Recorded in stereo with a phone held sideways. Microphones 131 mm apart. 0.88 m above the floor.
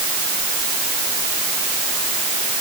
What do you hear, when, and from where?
Only background noise.